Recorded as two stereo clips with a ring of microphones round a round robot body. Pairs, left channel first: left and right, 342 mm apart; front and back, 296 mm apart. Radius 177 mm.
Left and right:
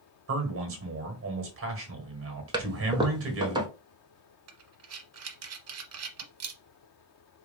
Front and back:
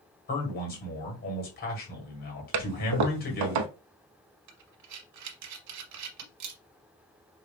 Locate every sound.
0.3 s a man speaking: 50° right, 1.7 m
2.5 s a toilet flushing: 170° right, 0.7 m
4.5 s breathing: 140° right, 0.8 m